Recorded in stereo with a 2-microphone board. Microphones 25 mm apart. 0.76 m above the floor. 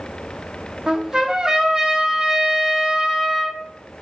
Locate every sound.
0.9 s a trumpet: 30° right (ahead or behind), 0.6 m